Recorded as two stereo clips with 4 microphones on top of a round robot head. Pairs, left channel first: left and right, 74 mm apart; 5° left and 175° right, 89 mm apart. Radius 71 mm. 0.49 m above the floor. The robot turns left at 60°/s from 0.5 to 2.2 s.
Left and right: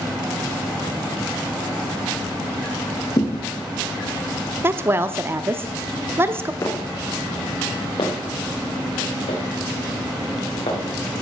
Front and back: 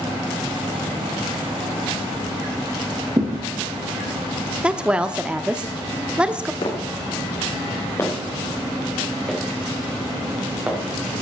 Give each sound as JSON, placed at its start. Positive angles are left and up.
{"t": 3.2, "sound": "a thud", "azimuth_deg": 130, "distance_m": 2.0}
{"t": 4.6, "sound": "a woman speaking", "azimuth_deg": -105, "distance_m": 0.7}
{"t": 6.6, "sound": "footsteps", "azimuth_deg": 40, "distance_m": 3.0}